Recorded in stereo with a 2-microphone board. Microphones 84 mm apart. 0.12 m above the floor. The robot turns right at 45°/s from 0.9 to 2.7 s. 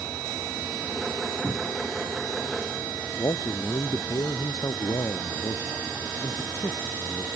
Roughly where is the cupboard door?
Right.